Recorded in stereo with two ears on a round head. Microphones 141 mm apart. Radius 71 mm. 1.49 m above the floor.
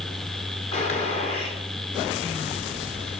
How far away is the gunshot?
About 4 m.